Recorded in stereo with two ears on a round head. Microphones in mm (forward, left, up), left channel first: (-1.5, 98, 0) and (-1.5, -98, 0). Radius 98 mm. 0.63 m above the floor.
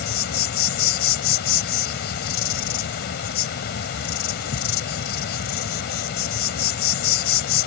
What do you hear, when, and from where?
0.0 s an insect: 50° left (ahead or behind)